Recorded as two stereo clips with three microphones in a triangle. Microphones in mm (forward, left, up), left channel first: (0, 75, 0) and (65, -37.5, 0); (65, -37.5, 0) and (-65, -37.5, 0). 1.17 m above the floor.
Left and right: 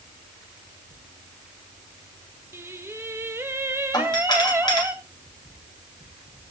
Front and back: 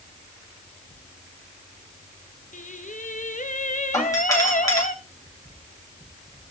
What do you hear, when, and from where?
2.5 s singing: 10° left, 0.9 m
3.9 s a doorbell: 65° left, 2.5 m